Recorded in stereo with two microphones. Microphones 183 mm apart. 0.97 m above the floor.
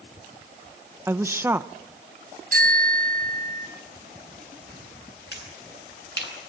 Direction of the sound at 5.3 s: 65° left (ahead or behind).